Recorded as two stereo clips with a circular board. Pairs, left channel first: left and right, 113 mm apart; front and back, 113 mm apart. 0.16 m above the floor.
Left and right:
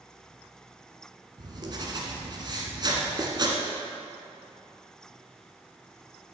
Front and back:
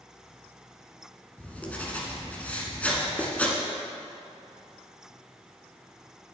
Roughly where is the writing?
Right.